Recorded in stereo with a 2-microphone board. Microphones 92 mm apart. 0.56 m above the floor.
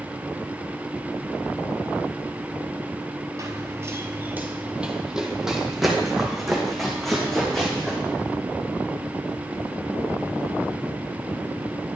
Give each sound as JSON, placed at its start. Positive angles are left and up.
{"t": 3.4, "sound": "running footsteps", "side_deg": -40, "distance_m": 0.6}